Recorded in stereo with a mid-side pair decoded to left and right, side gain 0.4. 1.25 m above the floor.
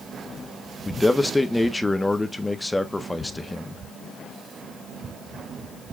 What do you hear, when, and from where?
0.8 s a man speaking: 15° left, 1.3 m